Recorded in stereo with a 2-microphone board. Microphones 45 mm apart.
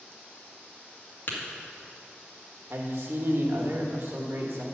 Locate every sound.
1.3 s tapping: 50° left (ahead or behind), 1.7 m
2.7 s a man speaking: 65° right (ahead or behind), 1.5 m